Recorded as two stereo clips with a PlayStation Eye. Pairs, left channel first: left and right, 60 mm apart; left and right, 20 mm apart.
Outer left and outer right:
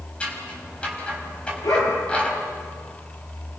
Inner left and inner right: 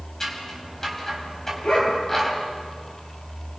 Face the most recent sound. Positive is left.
turn(degrees=80)